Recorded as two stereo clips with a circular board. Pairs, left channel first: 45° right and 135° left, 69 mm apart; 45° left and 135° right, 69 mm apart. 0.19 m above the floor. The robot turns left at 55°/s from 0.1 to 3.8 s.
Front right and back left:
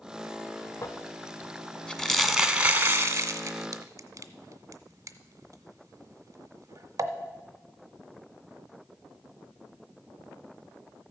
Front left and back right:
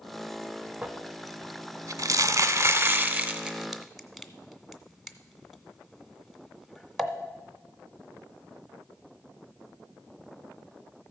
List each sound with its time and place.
0.8 s crumpling: 60° right, 0.6 m; by 7.1 s 135° left, 0.6 m